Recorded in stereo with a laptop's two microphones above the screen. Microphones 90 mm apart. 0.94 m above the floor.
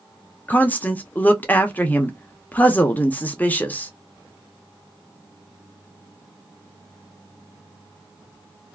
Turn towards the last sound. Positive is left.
turn(degrees=20)  # may be behind; listen again after turning